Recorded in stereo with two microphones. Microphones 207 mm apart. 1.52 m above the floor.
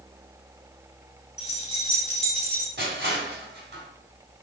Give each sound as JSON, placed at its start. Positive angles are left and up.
{"t": 1.4, "sound": "keys jangling", "side_deg": 25, "distance_m": 3.0}
{"t": 2.8, "sound": "crushing", "side_deg": -55, "distance_m": 3.5}